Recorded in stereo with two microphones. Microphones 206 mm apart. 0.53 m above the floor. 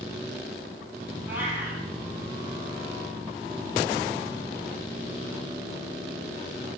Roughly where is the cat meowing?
Centre.